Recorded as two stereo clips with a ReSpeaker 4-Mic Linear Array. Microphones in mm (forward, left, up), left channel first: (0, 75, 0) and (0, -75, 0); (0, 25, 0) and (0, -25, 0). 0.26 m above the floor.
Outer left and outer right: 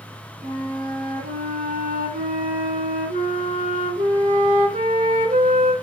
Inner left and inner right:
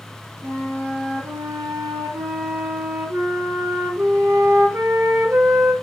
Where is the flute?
70° right (ahead or behind), 1.6 m.